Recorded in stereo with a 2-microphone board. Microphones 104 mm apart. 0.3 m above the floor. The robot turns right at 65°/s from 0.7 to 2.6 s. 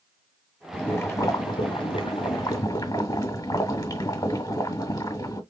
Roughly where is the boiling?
Ahead.